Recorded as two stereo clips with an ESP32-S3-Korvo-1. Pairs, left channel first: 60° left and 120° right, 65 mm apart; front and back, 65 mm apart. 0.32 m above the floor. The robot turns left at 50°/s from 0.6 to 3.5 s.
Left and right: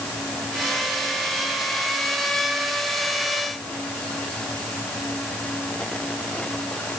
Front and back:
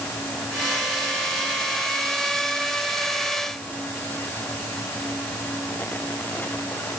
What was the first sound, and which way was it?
Only background noise.